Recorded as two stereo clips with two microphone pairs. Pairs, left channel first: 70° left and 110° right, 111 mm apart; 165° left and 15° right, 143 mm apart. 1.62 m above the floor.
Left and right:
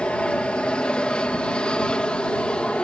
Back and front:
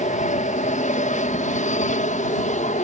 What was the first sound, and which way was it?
An aircraft, 150° left.